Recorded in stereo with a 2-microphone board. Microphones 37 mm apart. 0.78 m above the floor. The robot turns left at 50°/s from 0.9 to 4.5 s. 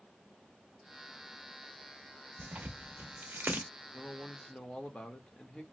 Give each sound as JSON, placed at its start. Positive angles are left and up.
{"t": 2.4, "sound": "tearing paper", "side_deg": -40, "distance_m": 0.8}
{"t": 3.9, "sound": "a man speaking", "side_deg": 15, "distance_m": 0.9}